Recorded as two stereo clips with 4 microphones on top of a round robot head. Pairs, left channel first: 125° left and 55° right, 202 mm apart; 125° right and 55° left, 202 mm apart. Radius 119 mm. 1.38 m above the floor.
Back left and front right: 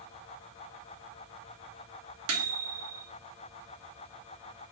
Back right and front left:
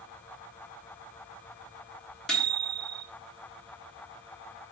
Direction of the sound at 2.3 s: 40° right.